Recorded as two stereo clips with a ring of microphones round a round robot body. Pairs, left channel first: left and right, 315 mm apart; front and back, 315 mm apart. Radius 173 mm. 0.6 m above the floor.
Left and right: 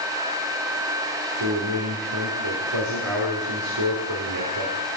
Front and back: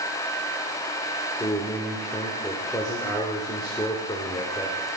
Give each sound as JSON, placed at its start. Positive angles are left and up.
{"t": 1.4, "sound": "a man speaking", "azimuth_deg": -80, "distance_m": 1.5}